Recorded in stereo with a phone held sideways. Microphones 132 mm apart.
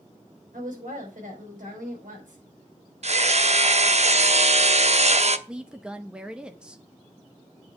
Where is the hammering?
55° right (ahead or behind), 0.7 m.